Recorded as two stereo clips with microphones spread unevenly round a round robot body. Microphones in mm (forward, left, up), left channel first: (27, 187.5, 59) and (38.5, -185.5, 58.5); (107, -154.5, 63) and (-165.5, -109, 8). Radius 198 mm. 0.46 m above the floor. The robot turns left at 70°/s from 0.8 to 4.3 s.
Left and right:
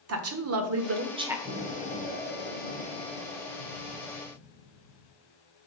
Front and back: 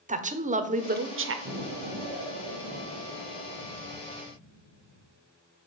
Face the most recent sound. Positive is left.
turn(degrees=15)